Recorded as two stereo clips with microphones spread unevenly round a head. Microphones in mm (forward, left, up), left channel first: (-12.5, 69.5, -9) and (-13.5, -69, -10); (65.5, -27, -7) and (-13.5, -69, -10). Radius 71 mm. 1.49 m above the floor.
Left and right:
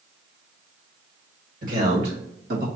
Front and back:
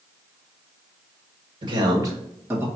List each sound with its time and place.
1.6 s a man speaking: 120° right, 1.8 m; by 2.6 s 85° right, 2 m